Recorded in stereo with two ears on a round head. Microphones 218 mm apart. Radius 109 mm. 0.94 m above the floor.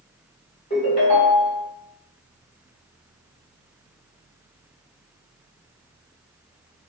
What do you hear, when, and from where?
0.7 s a ringtone: 25° left (ahead or behind), 1.4 m